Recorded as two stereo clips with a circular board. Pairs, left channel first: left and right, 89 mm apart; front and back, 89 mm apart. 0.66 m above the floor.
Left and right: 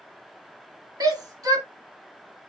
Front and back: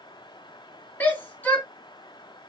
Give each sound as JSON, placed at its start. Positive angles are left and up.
{"t": 1.0, "sound": "a shout", "azimuth_deg": -65, "distance_m": 1.5}